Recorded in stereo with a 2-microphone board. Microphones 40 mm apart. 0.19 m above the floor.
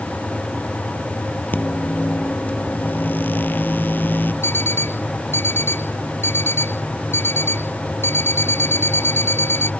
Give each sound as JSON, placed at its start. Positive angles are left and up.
{"t": 1.5, "sound": "a microwave", "side_deg": 55}
{"t": 4.4, "sound": "an alarm clock", "side_deg": 90}